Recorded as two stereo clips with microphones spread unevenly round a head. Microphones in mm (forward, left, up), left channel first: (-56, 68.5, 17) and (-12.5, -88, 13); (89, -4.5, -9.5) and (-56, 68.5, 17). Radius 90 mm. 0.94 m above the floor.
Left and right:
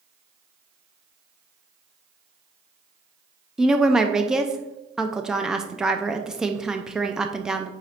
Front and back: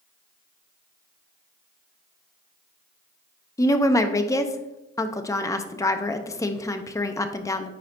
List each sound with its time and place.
3.6 s a woman speaking: 5° left, 0.5 m